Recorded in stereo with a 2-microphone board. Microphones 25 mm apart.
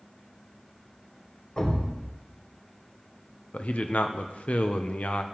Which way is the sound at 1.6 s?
45° left (ahead or behind).